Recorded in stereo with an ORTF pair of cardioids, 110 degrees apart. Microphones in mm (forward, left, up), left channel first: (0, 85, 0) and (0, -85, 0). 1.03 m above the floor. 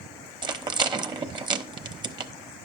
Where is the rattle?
25° right, 1.0 m.